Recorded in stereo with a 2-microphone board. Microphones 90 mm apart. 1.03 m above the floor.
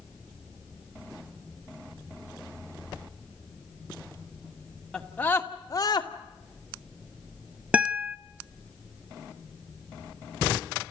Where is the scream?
5° left (ahead or behind), 2 m; by 6.1 s 50° left (ahead or behind), 2 m.